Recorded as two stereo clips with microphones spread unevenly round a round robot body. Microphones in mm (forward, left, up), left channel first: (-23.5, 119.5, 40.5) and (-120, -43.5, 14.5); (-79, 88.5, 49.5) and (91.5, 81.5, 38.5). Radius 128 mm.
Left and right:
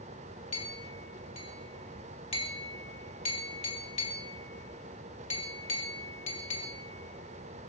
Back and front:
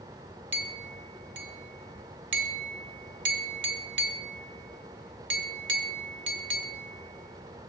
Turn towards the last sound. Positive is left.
turn(degrees=-10)